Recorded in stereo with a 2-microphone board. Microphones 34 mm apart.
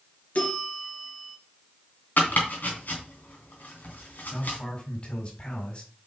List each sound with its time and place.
0.3 s a bell: 50° left (ahead or behind), 2.5 m
2.2 s chopping: 65° left (ahead or behind), 3 m
4.3 s a man speaking: 40° left (ahead or behind), 4.5 m